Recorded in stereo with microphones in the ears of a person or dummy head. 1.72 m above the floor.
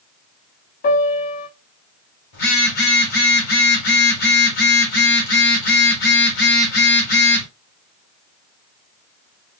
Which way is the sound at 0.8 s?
50° left (ahead or behind).